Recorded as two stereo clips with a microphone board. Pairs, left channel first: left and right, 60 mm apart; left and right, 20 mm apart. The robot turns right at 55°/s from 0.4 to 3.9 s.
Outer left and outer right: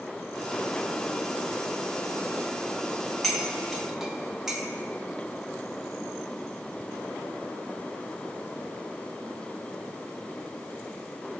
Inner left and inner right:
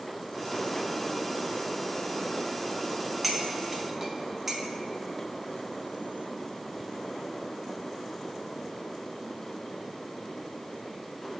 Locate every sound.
3.2 s cutlery clinking: 5° left (ahead or behind), 0.9 m; by 4.6 s 10° right (ahead or behind), 0.9 m